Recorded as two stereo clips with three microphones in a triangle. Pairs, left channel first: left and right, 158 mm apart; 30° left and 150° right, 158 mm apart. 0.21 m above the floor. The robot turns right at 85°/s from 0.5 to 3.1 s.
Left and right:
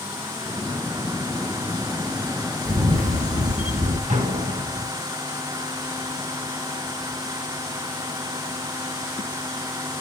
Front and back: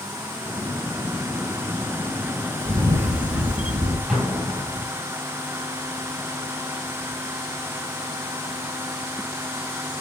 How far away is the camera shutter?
About 3 m.